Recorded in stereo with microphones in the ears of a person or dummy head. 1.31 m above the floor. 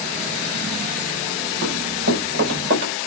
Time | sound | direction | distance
1.6 | running footsteps | 60° right (ahead or behind) | 6.5 m